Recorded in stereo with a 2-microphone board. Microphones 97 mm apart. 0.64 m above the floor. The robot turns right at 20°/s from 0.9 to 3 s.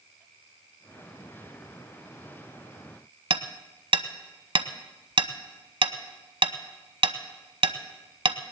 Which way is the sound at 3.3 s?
65° right (ahead or behind).